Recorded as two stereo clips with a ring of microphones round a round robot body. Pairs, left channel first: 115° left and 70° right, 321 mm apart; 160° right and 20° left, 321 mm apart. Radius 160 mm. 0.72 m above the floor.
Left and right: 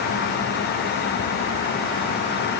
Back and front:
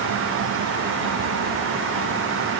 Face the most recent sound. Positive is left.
No sound to turn to.